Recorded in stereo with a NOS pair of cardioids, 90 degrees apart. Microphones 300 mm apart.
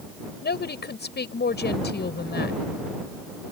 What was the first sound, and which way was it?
A woman speaking, 35° left.